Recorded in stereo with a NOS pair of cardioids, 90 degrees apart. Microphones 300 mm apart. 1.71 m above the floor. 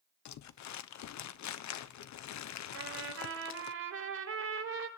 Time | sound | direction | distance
0.2 | crumpling | 65° left | 1.1 m
2.7 | a trumpet | 50° right | 4.5 m